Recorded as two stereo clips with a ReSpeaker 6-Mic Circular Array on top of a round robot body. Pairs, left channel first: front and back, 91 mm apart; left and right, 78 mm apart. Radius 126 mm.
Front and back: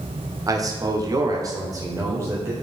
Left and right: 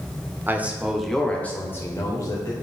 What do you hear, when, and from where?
0.5 s a man speaking: 145° right, 1.5 m; by 2.5 s 120° left, 2 m